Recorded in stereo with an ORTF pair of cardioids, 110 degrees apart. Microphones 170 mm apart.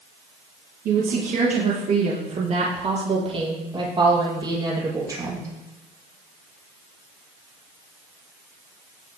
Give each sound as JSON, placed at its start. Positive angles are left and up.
{"t": 0.8, "sound": "a woman speaking", "azimuth_deg": -55, "distance_m": 4.5}